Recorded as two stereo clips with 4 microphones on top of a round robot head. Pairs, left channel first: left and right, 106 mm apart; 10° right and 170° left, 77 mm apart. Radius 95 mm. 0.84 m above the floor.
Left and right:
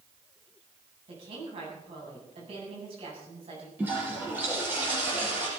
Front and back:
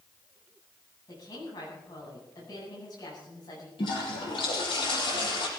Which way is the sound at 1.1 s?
50° right.